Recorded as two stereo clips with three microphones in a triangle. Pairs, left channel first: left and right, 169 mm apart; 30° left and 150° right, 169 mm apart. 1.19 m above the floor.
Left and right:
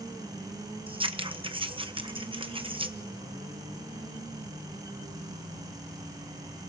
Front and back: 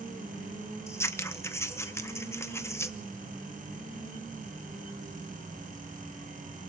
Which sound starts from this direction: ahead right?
Scissors, at 0.9 s.